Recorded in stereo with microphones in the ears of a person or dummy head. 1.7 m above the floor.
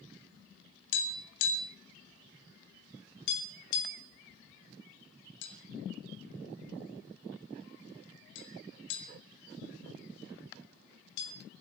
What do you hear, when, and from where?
0.9 s tapping: 65° left (ahead or behind), 3.5 m